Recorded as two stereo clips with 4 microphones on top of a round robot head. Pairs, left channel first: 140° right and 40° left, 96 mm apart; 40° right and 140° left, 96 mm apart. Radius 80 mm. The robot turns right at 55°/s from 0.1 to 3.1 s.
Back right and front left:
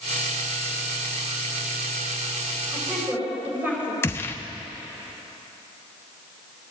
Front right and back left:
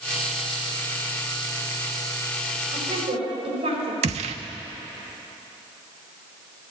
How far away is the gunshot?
About 0.7 m.